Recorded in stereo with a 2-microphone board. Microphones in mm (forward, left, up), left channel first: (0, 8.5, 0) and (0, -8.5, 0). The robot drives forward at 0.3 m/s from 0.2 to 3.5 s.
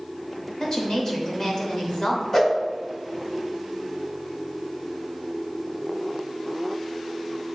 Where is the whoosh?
25° left (ahead or behind), 1.0 m.